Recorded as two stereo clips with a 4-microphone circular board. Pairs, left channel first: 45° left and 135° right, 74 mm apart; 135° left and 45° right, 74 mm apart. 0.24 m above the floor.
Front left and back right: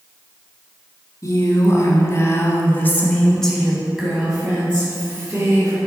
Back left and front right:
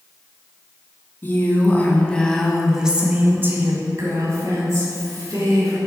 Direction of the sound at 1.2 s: 80° left.